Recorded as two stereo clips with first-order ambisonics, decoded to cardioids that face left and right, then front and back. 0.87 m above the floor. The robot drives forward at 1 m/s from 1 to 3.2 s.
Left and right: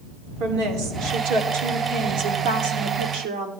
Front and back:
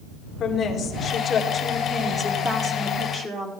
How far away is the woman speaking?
About 2.5 m.